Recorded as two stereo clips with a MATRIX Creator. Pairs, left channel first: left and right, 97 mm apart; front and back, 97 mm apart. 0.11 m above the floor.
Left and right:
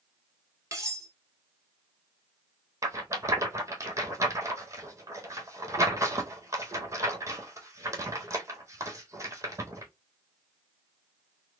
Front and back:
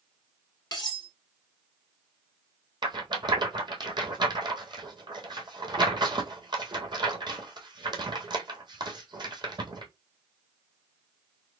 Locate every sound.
0.7 s cutlery clinking: 40° right, 1.5 m
2.8 s a rattle: 145° right, 1.1 m